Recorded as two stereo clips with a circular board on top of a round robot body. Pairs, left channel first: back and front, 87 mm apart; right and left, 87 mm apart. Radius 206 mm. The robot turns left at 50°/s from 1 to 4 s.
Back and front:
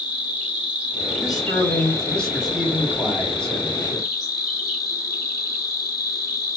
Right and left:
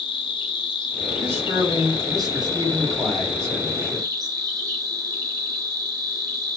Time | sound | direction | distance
0.0 | an insect | 75° right | 0.9 m
1.2 | a man speaking | 150° left | 1.8 m